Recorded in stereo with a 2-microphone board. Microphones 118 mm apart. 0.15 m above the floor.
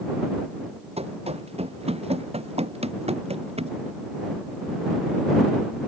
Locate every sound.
1.0 s running footsteps: 65° right (ahead or behind)